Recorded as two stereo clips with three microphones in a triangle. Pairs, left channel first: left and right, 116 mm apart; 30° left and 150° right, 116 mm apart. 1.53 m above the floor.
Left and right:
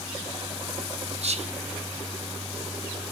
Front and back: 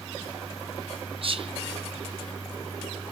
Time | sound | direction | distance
1.2 | whispering | 110° right | 0.6 m